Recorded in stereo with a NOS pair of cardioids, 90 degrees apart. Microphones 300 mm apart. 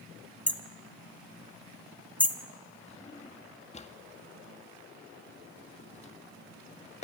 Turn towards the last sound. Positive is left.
turn(degrees=25)